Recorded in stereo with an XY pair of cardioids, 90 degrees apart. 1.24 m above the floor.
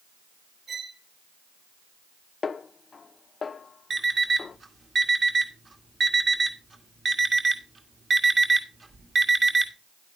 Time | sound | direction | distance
0.7 | a violin | 40° right | 4.5 m
2.4 | a snare drum | 40° left | 0.6 m
3.9 | an alarm clock | 40° right | 1.6 m